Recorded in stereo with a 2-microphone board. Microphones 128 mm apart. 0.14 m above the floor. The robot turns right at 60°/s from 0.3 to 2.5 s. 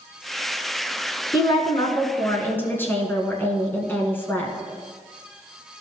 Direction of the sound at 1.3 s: 75° left.